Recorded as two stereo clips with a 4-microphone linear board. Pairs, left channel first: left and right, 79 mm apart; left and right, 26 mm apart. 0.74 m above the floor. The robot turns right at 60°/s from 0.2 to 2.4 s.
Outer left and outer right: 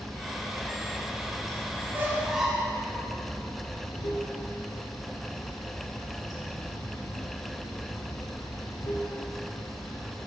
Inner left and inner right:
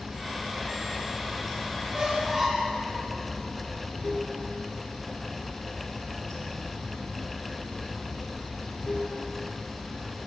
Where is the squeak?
35° right (ahead or behind), 1.3 m; by 2.8 s 5° right (ahead or behind), 1.3 m.